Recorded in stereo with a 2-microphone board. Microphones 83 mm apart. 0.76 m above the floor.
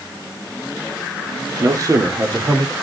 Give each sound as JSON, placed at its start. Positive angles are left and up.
{"t": 1.6, "sound": "a man speaking", "side_deg": -50, "distance_m": 1.5}